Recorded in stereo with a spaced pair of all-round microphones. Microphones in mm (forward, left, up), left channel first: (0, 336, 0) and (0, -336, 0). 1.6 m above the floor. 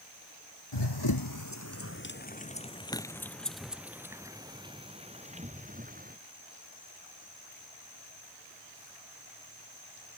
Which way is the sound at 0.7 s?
40° left (ahead or behind).